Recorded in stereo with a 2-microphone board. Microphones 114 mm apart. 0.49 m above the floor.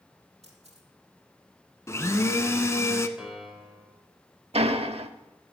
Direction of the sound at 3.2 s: 5° right (ahead or behind).